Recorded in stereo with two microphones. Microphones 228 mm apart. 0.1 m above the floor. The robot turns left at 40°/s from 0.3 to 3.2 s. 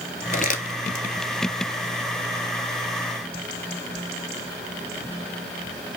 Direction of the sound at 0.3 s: 40° left (ahead or behind).